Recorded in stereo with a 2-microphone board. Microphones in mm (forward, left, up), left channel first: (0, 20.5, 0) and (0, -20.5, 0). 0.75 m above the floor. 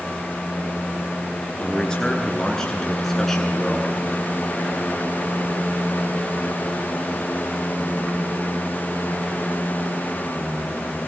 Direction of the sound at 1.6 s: 20° left (ahead or behind).